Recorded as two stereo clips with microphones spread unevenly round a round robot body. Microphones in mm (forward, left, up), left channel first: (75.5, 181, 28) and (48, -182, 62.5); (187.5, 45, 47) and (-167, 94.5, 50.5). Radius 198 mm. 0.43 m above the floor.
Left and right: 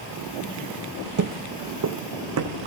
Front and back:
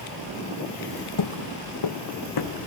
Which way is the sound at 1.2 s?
50° right.